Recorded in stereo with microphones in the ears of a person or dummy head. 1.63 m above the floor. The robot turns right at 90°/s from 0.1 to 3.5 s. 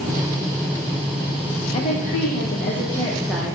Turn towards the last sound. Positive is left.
turn(degrees=-165)